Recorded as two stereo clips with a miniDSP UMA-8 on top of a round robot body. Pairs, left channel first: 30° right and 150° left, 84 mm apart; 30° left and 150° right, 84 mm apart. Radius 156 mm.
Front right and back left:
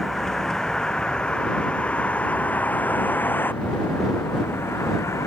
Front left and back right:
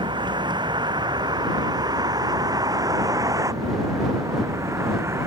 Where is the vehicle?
115° right; by 5.3 s 90° right.